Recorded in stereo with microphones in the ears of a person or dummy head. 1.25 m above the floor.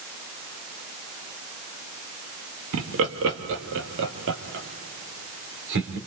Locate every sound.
2.7 s laughter: 75° right (ahead or behind), 1.9 m; by 6.0 s 65° right (ahead or behind), 4 m